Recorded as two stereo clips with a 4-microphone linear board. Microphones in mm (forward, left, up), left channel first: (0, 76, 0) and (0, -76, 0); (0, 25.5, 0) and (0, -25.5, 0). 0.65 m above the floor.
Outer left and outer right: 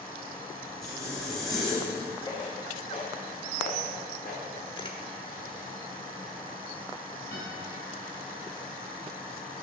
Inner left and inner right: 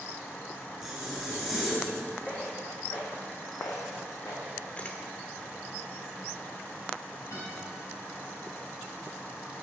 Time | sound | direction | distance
0.8 | a zipper | centre (ahead or behind) | 4.5 m
2.3 | footsteps | 25° left (ahead or behind) | 2.5 m
4.8 | a camera shutter | 30° left (ahead or behind) | 1.0 m
7.3 | a guitar | 65° left (ahead or behind) | 4.5 m